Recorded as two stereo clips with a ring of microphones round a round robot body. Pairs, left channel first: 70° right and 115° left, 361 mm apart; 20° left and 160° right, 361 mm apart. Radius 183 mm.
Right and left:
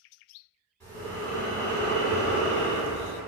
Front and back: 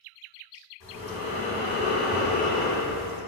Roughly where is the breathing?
Ahead.